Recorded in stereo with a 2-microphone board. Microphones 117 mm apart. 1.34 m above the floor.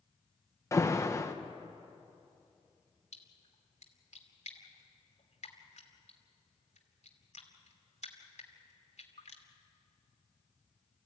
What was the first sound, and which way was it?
An alarm, 25° left (ahead or behind).